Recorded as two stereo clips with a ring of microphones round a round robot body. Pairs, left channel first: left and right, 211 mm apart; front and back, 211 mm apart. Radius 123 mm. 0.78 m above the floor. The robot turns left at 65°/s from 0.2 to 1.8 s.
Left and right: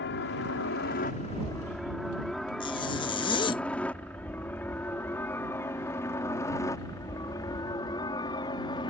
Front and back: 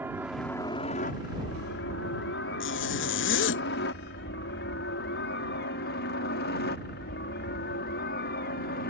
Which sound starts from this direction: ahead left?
A zipper, at 2.6 s.